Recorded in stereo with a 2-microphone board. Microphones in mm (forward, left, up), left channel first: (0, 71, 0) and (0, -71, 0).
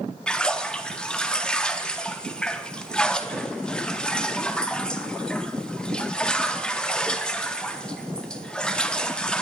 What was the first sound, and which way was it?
A splash, 5° left (ahead or behind).